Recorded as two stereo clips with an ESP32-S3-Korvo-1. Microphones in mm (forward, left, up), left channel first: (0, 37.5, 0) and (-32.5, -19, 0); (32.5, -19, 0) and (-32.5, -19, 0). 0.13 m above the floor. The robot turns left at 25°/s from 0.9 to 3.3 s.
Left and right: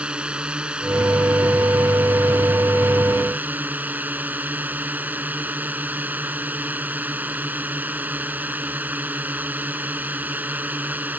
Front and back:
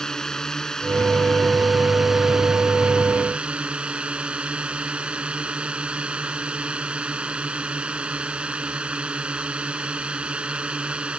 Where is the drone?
70° right; by 11.2 s 130° right.